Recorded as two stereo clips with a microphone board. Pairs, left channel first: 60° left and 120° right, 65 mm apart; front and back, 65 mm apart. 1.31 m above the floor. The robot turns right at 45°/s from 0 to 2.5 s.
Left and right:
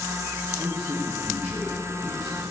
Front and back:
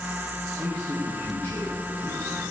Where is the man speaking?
95° right, 1.9 m; by 2.4 s 10° right, 1.9 m.